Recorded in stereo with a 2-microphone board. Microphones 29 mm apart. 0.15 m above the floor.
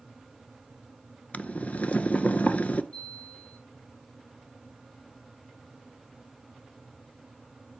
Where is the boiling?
60° left (ahead or behind), 0.6 m.